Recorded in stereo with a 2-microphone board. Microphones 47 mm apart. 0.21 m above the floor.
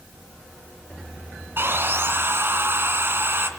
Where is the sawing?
55° right (ahead or behind), 2 m.